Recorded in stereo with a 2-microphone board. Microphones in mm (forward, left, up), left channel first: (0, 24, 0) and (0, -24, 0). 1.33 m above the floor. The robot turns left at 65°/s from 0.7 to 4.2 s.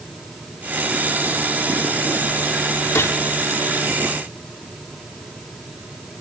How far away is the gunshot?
About 3.5 m.